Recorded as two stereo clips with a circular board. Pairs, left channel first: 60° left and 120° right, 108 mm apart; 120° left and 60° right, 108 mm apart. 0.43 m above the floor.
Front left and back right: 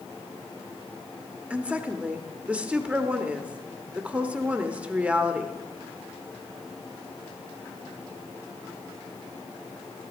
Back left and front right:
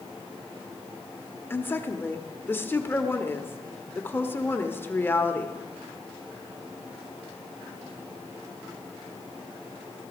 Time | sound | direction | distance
1.5 | a woman speaking | 170° left | 1.0 m